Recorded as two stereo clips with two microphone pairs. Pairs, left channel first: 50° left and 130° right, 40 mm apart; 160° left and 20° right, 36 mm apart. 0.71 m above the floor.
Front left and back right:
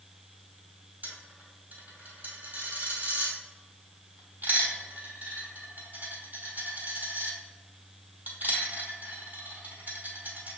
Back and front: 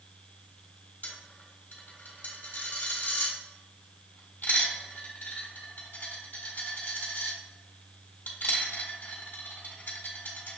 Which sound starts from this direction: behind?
A dropped coin, at 1.0 s.